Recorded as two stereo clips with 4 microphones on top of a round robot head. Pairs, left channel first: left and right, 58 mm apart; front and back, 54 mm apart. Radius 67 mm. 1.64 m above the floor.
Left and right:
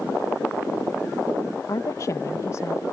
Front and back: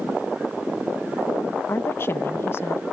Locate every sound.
1.7 s a woman speaking: 40° left